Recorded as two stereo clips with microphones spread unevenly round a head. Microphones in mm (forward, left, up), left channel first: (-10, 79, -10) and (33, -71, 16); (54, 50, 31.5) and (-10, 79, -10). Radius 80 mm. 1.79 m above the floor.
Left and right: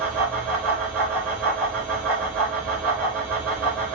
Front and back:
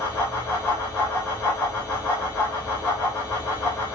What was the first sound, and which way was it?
A fan, 20° left.